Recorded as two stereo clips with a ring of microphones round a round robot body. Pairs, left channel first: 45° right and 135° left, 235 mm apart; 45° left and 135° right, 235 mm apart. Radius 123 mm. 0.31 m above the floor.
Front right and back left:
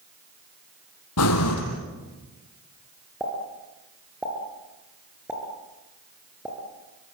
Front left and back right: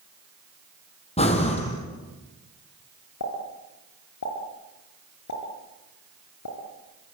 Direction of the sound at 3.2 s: 50° left.